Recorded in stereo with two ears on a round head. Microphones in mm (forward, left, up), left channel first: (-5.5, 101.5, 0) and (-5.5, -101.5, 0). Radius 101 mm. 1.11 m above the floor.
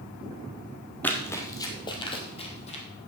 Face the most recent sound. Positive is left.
turn(degrees=30)  # may be behind; listen again after turning